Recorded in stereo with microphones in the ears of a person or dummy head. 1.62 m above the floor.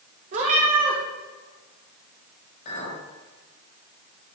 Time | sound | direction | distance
0.3 | a cat meowing | 35° right (ahead or behind) | 1.5 m
2.6 | a clink | 45° left (ahead or behind) | 5 m